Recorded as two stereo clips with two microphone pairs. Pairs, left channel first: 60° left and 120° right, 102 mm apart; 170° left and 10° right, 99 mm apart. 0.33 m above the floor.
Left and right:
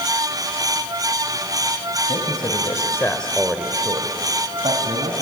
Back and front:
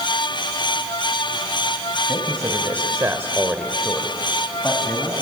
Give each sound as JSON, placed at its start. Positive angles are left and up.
{"t": 2.1, "sound": "a man speaking", "azimuth_deg": 45, "distance_m": 2.0}